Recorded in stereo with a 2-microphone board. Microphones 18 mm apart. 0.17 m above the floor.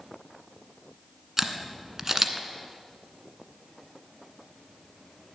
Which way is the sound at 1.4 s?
20° right (ahead or behind).